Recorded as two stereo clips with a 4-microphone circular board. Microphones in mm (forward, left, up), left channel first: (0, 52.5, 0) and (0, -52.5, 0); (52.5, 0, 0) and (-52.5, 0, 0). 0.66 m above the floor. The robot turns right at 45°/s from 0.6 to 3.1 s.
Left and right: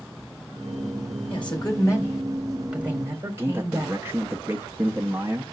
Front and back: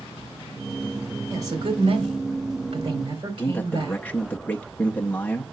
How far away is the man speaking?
About 0.7 m.